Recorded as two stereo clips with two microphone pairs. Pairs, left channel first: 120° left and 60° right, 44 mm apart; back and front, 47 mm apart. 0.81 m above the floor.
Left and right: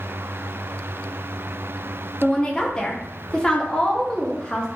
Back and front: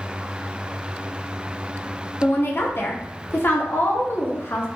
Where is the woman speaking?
175° right, 0.6 m.